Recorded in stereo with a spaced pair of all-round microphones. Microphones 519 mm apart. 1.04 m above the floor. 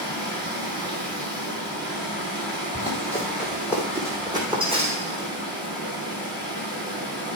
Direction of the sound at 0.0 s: 10° right (ahead or behind).